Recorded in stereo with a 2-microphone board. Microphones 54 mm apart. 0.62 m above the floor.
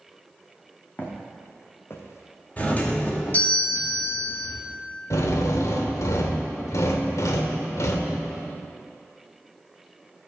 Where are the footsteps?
35° left (ahead or behind), 2 m; by 3.4 s 75° left (ahead or behind), 1.8 m.